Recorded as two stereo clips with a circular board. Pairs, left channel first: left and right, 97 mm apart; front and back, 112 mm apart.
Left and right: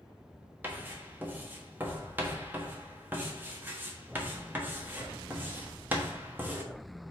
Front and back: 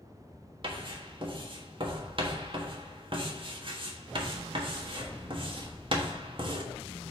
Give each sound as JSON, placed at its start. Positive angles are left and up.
{"t": 0.6, "sound": "writing", "azimuth_deg": -155, "distance_m": 1.3}